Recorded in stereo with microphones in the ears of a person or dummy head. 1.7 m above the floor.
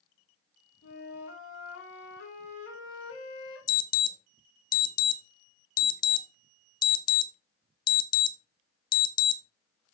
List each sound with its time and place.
0.8 s a flute: 85° left, 3 m
3.7 s an alarm: 25° left (ahead or behind), 0.8 m